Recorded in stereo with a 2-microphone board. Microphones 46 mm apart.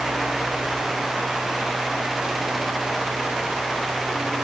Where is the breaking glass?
I don't hear breaking glass.